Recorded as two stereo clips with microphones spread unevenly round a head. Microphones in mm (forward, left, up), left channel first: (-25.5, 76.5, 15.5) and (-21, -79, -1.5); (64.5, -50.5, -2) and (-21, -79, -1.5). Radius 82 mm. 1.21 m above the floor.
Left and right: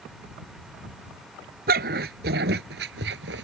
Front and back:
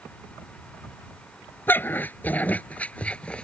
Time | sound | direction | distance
1.7 | a dog barking | 50° right | ?